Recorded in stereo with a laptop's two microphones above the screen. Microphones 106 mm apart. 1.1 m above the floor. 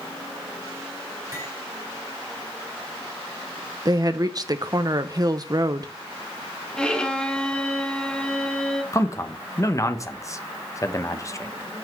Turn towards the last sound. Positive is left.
turn(degrees=30)  # may be behind; listen again after turning